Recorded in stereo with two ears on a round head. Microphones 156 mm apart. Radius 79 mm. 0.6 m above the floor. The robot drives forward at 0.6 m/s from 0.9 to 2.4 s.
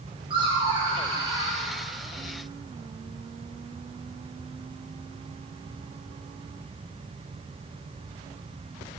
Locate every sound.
0.3 s laughter: 30° right (ahead or behind), 2.5 m; by 1.6 s 25° right (ahead or behind), 3 m